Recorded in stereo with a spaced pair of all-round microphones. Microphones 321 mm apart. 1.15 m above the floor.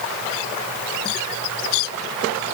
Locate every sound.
Only background noise.